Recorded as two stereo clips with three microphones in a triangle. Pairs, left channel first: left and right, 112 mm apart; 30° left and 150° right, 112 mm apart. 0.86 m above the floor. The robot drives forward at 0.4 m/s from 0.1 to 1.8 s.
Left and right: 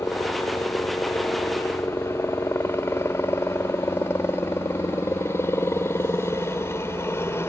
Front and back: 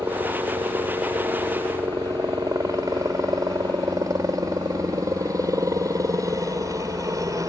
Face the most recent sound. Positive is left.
turn(degrees=155)